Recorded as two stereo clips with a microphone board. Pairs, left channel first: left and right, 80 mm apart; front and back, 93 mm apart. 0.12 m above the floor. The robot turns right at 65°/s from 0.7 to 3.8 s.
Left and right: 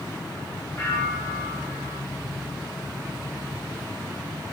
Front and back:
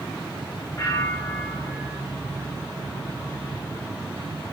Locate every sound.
0.8 s a bell: 40° left, 3 m; by 2.0 s 120° left, 3 m